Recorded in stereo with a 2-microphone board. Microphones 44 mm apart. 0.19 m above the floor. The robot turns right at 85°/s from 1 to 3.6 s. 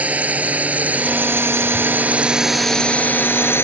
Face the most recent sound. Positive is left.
turn(degrees=65)  # may be behind; listen again after turning